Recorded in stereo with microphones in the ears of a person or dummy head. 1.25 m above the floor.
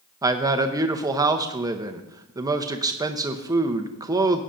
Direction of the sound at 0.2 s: 25° right (ahead or behind).